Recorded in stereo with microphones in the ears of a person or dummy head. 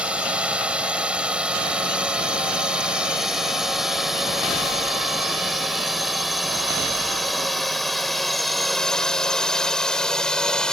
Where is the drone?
5° right (ahead or behind); by 10.7 s centre (ahead or behind).